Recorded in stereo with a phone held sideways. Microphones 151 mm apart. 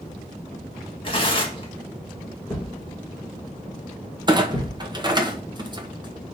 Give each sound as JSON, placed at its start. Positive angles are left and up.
{"t": 1.0, "sound": "tearing paper", "side_deg": 35, "distance_m": 1.7}
{"t": 2.5, "sound": "a thud", "side_deg": 5, "distance_m": 4.0}
{"t": 4.3, "sound": "a clunk", "side_deg": -30, "distance_m": 1.0}